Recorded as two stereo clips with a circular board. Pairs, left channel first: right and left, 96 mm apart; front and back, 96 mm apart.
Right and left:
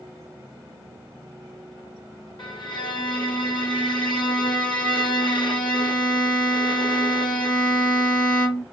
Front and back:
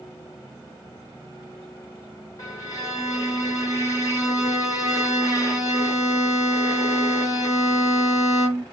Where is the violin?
55° right, 1.3 m.